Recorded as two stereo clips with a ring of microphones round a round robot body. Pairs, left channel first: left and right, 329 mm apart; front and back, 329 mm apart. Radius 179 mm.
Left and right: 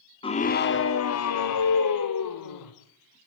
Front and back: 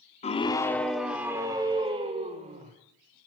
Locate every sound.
0.2 s a scream: 35° left, 0.8 m; by 2.7 s 110° left, 1.8 m